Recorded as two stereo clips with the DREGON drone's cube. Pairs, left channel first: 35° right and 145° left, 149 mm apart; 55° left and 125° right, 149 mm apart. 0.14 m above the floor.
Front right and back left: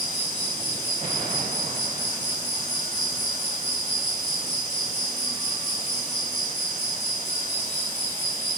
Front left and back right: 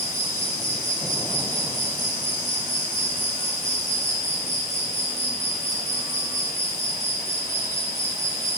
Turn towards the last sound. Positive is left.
turn(degrees=170)